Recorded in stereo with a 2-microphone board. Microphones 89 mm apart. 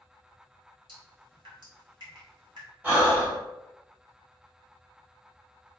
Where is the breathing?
20° right (ahead or behind), 1.4 m.